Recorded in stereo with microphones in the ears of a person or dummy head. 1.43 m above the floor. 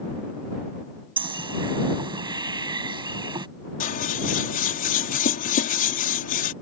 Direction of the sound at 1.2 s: 25° right (ahead or behind).